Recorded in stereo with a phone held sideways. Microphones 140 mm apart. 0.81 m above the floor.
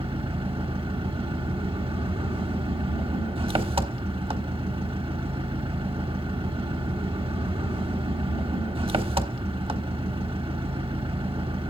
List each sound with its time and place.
0.0 s an engine running: 40° right (ahead or behind), 1.1 m